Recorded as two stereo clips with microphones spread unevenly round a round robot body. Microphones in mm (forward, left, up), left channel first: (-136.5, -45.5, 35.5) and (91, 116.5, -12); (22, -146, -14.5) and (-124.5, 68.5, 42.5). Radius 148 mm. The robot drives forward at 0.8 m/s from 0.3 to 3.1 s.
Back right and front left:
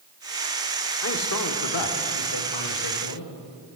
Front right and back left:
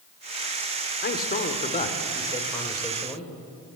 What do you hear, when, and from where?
1.0 s a man speaking: 95° right, 1.9 m; by 3.3 s 135° right, 2.5 m